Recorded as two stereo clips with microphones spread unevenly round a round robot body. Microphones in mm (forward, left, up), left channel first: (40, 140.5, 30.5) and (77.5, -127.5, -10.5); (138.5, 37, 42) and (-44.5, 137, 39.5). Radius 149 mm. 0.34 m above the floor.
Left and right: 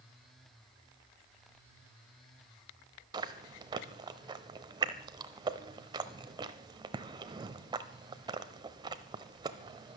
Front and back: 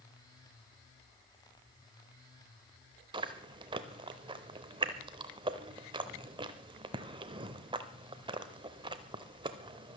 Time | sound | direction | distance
3.1 | chewing | 145° right | 0.6 m